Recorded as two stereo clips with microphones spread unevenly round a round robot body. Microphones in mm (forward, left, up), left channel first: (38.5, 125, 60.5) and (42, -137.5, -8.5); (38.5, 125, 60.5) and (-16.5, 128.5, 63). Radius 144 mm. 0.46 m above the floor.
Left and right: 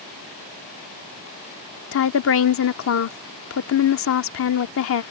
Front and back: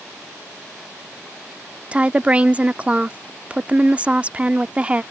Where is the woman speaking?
115° left.